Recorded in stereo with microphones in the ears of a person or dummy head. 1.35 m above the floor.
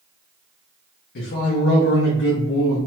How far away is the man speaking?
About 0.6 m.